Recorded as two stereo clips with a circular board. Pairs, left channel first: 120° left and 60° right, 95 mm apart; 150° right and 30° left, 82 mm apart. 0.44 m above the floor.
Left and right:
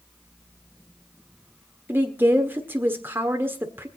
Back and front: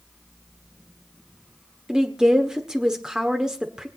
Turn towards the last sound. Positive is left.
turn(degrees=-35)